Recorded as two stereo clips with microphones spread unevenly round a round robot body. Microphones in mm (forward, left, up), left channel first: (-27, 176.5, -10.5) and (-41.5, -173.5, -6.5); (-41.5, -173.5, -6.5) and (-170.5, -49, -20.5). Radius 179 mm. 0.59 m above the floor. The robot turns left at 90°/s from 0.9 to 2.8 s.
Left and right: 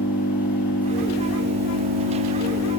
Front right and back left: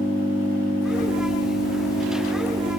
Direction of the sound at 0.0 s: 5° right.